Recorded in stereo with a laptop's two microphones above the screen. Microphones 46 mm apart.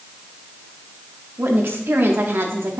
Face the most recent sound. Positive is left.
turn(degrees=-60)  # may be behind; listen again after turning